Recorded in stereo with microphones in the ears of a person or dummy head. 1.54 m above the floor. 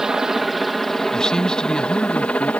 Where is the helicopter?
5° right (ahead or behind); by 2.6 s 5° left (ahead or behind).